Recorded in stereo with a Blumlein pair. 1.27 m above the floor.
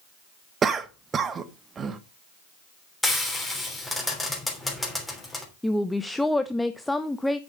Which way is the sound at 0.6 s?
20° right.